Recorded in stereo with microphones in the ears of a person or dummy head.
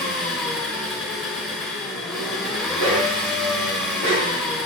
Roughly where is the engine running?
Centre.